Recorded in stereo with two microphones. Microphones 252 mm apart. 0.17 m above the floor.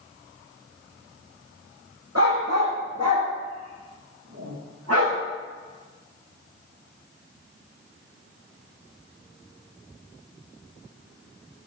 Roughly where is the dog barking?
Right.